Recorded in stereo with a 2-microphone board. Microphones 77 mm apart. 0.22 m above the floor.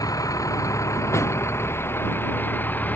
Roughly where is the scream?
No scream in this recording.